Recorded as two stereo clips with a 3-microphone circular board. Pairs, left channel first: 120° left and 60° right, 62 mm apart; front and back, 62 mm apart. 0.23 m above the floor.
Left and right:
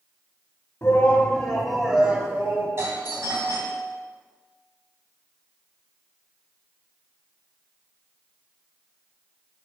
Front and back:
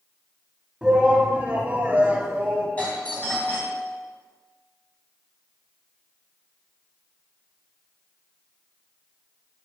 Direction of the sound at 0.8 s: 110° left.